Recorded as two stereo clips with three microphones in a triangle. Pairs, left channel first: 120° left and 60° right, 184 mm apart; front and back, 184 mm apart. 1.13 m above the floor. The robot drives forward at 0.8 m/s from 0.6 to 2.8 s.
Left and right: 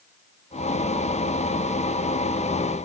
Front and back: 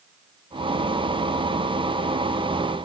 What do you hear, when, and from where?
Only background noise.